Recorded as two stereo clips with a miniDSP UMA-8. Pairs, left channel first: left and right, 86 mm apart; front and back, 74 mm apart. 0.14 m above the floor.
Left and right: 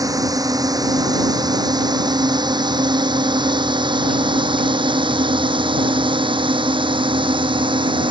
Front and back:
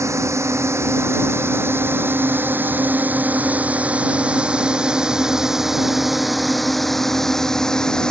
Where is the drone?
135° right; by 8.1 s 80° right.